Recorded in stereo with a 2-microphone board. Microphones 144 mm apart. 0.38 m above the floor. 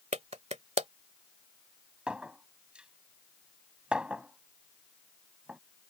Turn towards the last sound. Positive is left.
turn(degrees=-5)  # may be behind; listen again after turning